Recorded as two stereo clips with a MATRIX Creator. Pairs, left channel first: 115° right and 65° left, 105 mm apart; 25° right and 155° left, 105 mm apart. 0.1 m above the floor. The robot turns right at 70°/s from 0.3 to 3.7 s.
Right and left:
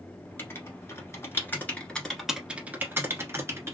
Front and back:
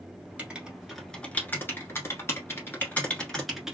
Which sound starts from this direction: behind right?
Writing, at 0.4 s.